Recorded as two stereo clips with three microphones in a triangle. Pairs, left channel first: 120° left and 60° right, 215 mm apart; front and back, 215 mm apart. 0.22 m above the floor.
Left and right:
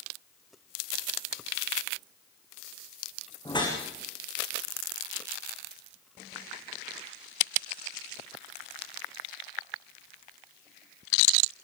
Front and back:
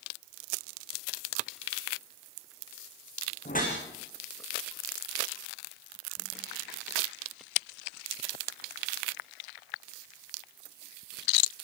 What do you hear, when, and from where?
3.5 s a whoosh: 50° left, 8 m